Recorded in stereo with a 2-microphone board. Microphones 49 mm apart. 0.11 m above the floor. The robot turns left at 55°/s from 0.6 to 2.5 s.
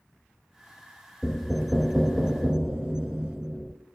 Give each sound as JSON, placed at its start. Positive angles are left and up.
{"t": 1.2, "sound": "knocking", "side_deg": 5, "distance_m": 0.8}